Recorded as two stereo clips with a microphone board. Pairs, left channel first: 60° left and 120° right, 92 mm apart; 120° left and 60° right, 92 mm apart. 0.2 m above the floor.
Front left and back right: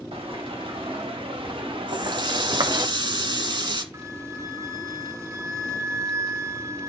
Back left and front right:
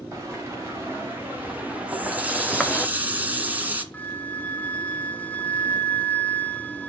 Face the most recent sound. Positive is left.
turn(degrees=-170)